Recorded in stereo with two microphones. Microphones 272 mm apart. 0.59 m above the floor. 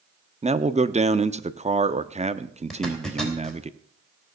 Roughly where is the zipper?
Centre.